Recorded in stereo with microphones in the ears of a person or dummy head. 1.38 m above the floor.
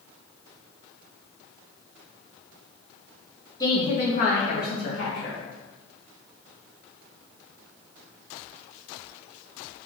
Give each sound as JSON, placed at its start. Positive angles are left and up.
{"t": 3.6, "sound": "a woman speaking", "side_deg": 20, "distance_m": 1.1}